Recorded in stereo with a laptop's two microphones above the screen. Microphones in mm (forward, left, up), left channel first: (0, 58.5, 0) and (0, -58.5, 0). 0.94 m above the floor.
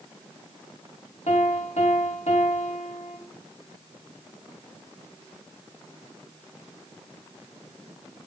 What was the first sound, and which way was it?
A piano, 70° left (ahead or behind).